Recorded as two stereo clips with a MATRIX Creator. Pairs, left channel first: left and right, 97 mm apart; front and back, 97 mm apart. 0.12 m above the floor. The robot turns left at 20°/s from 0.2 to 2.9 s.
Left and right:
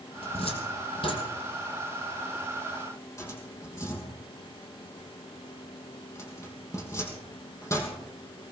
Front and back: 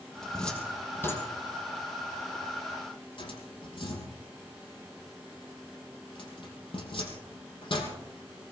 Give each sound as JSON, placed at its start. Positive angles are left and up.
{"t": 0.2, "sound": "a cupboard door", "azimuth_deg": 85, "distance_m": 2.5}